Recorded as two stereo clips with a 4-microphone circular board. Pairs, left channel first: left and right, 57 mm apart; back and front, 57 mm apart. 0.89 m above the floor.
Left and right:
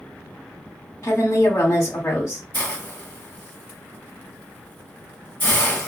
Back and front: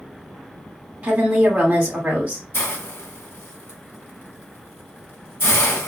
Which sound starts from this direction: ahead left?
A woman speaking, at 1.0 s.